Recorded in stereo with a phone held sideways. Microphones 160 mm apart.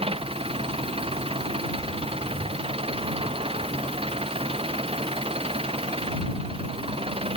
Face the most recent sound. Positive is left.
turn(degrees=-35)  # may be behind; listen again after turning